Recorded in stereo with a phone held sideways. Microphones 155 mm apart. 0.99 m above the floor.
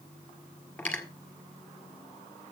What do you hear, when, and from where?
0.8 s cutlery clinking: 5° left (ahead or behind), 1.7 m